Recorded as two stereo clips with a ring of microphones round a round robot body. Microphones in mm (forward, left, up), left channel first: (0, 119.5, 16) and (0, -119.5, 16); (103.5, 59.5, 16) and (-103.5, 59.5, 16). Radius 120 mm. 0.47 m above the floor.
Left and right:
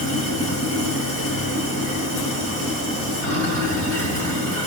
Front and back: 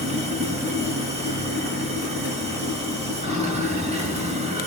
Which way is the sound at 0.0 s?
120° left.